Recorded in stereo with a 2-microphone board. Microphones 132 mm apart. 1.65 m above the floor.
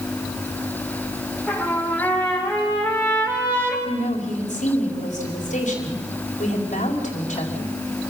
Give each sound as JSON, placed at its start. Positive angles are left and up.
{"t": 1.5, "sound": "a trumpet", "side_deg": 10, "distance_m": 6.0}
{"t": 3.9, "sound": "a woman speaking", "side_deg": 85, "distance_m": 4.5}